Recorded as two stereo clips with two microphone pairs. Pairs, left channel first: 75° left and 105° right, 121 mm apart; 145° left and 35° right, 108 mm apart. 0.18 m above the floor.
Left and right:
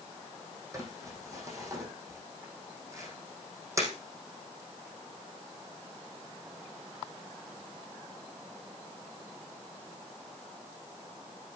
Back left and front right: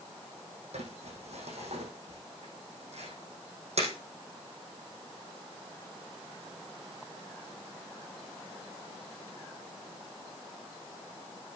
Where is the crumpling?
40° right, 6 m.